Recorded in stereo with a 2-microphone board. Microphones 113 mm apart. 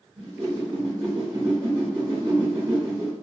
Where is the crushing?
I don't hear crushing.